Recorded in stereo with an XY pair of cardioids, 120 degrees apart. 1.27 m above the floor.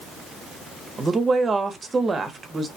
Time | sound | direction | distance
1.0 | a woman speaking | 25° right | 0.7 m